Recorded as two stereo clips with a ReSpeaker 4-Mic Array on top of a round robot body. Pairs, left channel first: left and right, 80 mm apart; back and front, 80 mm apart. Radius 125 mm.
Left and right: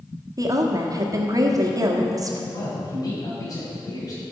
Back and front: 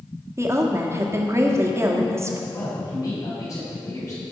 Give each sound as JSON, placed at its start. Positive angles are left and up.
{"t": 0.4, "sound": "a woman speaking", "azimuth_deg": -55, "distance_m": 1.4}
{"t": 2.5, "sound": "a man speaking", "azimuth_deg": 130, "distance_m": 4.0}